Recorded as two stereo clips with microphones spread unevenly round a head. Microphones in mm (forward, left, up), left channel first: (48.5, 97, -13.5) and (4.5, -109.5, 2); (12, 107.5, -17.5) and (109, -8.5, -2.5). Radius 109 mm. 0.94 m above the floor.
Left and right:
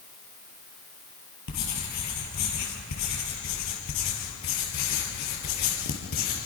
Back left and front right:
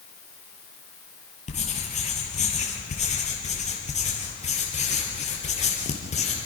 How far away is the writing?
About 5 m.